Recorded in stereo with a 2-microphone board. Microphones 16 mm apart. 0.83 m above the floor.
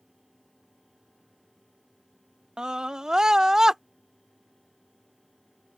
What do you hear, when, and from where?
2.6 s a scream: 60° right (ahead or behind); by 3.8 s 35° right (ahead or behind)